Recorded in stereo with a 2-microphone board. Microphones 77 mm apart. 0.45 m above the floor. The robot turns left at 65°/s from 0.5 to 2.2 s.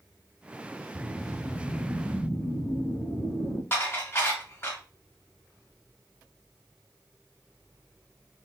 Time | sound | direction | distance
0.9 | a whoosh | 120° right | 1.1 m
3.7 | dishes clattering | 30° left (ahead or behind) | 1.6 m